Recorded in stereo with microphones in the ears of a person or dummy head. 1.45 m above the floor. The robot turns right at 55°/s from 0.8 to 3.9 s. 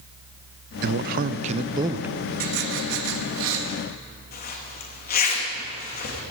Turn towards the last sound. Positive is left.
turn(degrees=45)  # may be behind; listen again after turning